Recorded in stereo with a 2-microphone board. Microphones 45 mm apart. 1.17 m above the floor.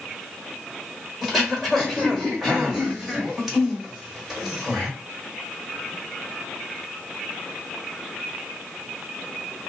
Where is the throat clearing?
10° right (ahead or behind), 1.1 m.